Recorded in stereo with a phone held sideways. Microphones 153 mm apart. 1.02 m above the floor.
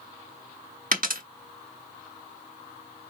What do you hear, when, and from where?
0.9 s a dropped coin: 65° right (ahead or behind), 0.8 m